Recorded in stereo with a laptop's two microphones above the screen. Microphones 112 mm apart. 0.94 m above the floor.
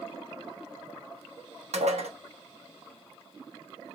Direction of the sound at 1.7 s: 75° right (ahead or behind).